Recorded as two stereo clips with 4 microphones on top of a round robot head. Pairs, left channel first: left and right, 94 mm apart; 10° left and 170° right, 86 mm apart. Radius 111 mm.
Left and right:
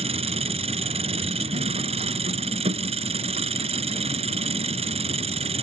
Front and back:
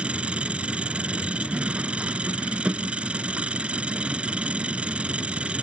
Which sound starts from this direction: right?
An engine running, at 0.0 s.